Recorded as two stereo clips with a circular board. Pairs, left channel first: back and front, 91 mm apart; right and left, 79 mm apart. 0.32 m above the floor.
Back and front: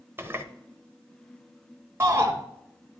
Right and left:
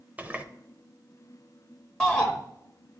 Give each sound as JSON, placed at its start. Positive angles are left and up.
{"t": 0.2, "sound": "a running tap", "azimuth_deg": 35, "distance_m": 0.7}
{"t": 2.0, "sound": "a shout", "azimuth_deg": -20, "distance_m": 1.1}